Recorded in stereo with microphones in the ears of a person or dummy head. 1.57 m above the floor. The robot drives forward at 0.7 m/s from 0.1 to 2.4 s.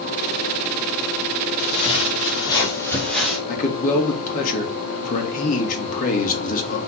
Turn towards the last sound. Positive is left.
turn(degrees=50)  # may be behind; listen again after turning